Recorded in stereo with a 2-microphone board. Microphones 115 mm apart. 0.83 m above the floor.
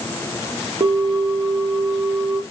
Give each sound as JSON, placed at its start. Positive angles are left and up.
{"t": 0.8, "sound": "a bell", "side_deg": -45, "distance_m": 0.8}